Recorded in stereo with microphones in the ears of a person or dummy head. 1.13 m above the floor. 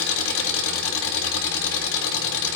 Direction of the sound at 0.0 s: 80° left.